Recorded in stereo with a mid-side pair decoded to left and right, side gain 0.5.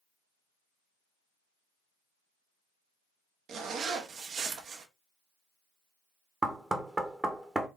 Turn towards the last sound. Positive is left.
turn(degrees=-20)